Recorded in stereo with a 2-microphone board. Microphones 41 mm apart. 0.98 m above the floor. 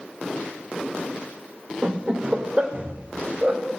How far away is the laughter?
About 2.5 m.